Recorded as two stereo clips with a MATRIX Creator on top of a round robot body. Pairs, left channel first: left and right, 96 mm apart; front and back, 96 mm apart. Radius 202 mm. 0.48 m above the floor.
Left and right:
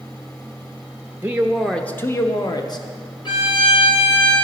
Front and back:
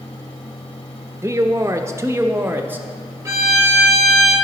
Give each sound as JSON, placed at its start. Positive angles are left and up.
{"t": 1.2, "sound": "a man speaking", "azimuth_deg": -145, "distance_m": 0.7}
{"t": 3.2, "sound": "a violin", "azimuth_deg": 125, "distance_m": 2.0}